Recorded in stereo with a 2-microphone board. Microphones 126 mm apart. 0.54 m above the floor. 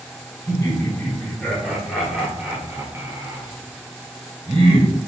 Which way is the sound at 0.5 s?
20° left (ahead or behind).